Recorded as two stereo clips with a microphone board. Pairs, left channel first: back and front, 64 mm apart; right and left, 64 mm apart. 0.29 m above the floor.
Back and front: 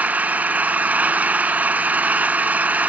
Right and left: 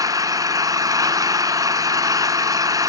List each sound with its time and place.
0.0 s an engine running: 65° left, 0.8 m